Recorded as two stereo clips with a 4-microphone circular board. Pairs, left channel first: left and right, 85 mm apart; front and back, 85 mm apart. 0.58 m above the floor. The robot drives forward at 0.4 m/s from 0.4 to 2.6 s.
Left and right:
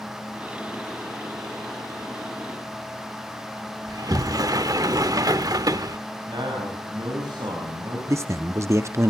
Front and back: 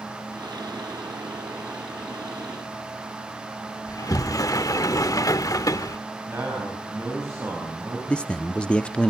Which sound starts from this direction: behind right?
A man speaking, at 6.3 s.